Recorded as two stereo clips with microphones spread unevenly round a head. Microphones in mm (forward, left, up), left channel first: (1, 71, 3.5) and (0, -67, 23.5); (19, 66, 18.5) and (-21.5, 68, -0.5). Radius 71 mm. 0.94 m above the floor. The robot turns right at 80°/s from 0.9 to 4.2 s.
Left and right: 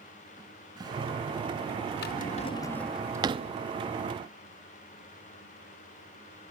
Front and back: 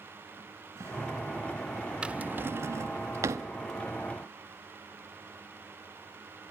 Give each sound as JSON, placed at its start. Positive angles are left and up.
{"t": 0.4, "sound": "a cupboard door", "azimuth_deg": -155, "distance_m": 4.5}
{"t": 2.0, "sound": "a drawer", "azimuth_deg": 110, "distance_m": 0.7}